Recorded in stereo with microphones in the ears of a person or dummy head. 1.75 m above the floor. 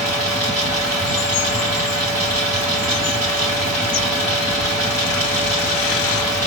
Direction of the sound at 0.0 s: 15° right (ahead or behind).